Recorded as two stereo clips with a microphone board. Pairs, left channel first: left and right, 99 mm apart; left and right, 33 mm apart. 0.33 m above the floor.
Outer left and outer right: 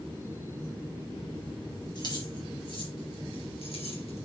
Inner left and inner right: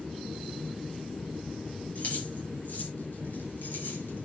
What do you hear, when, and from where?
1.9 s keys jangling: 50° left (ahead or behind), 5.5 m; by 4.2 s 80° left, 4.5 m